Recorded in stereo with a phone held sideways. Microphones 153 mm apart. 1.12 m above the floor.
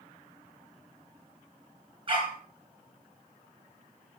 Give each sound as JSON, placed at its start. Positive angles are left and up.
{"t": 2.1, "sound": "a dog barking", "side_deg": -35, "distance_m": 4.0}